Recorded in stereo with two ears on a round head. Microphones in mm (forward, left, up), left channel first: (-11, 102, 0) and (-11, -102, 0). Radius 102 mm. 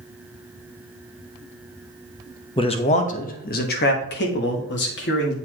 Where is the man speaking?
20° left (ahead or behind), 0.8 m; by 5.3 s 50° left (ahead or behind), 1.8 m.